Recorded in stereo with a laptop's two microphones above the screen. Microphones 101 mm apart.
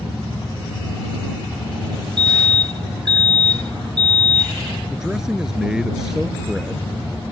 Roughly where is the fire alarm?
Right.